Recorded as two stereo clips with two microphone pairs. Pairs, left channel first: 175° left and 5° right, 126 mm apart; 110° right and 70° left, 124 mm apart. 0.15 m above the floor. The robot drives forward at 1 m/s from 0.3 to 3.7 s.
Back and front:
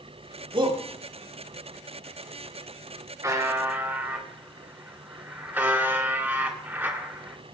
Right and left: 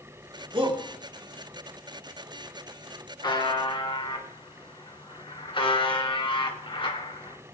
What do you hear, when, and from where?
0.5 s a shout: 30° left, 3 m; by 0.8 s 35° left, 2.5 m
3.2 s a buzzer: 65° right, 2.5 m; by 7.4 s 75° right, 2.5 m